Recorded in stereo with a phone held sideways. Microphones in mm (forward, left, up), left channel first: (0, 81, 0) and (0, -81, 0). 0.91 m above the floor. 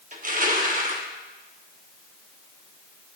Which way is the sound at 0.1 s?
50° right (ahead or behind).